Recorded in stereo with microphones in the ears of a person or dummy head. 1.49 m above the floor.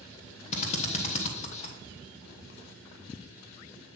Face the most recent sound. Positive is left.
turn(degrees=40)  # may be behind; listen again after turning